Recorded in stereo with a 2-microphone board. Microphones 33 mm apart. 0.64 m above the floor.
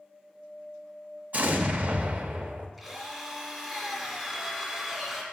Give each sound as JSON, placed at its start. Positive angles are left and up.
{"t": 1.3, "sound": "an explosion", "side_deg": -50, "distance_m": 0.6}
{"t": 2.8, "sound": "a drill", "side_deg": -5, "distance_m": 1.5}